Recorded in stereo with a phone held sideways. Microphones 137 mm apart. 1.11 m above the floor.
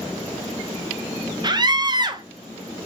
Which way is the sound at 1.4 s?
35° right (ahead or behind).